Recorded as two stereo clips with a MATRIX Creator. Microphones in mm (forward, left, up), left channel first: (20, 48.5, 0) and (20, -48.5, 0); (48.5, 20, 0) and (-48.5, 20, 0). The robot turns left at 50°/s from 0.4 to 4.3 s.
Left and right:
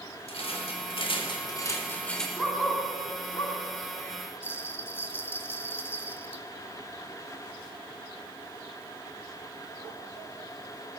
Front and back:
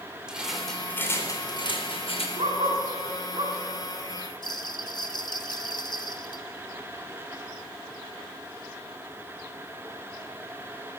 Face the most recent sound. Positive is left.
turn(degrees=30)